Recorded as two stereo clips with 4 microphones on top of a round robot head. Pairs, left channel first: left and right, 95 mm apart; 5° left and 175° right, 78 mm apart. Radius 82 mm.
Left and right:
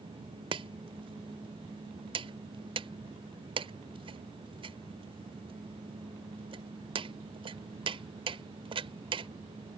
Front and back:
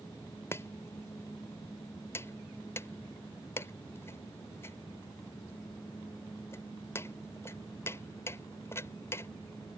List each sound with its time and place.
0.5 s chopping: 60° right